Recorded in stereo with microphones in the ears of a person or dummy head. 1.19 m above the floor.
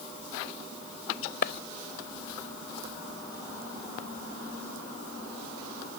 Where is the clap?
55° left (ahead or behind).